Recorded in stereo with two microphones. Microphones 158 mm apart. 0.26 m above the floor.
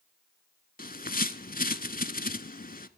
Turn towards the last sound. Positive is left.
turn(degrees=70)  # may be behind; listen again after turning